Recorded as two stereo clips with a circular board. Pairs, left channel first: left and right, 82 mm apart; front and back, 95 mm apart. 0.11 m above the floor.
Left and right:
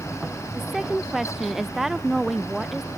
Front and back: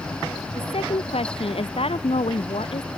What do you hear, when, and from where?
0.6 s a woman speaking: 5° right